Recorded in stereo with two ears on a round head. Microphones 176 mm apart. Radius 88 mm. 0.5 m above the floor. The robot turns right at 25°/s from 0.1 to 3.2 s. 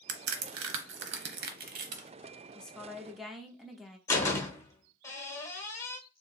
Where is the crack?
85° right, 0.8 m; by 2.1 s 35° right (ahead or behind), 0.8 m.